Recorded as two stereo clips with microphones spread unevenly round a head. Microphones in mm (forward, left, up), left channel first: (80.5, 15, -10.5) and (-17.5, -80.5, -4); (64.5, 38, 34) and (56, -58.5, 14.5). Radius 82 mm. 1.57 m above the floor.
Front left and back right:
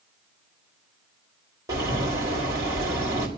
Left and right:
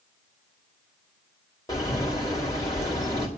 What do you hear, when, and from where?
1.7 s a bird: 150° left, 5 m